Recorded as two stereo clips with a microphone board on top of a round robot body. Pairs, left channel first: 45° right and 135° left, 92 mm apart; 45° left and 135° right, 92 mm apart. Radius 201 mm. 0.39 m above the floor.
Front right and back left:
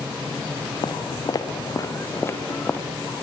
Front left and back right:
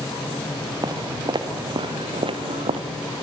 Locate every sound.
0.8 s footsteps: 85° right, 3.5 m; by 2.8 s 120° right, 3 m